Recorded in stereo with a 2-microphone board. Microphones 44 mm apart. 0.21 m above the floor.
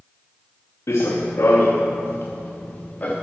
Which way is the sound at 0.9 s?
80° left.